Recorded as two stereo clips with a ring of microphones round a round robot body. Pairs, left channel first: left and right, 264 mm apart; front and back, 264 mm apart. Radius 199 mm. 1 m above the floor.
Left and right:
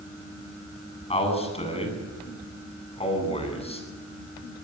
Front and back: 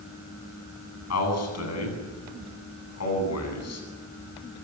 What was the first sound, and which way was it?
A man speaking, 20° left.